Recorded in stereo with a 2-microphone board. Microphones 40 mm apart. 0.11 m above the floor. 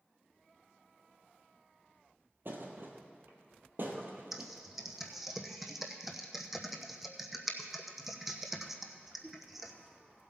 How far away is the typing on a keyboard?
About 1.0 m.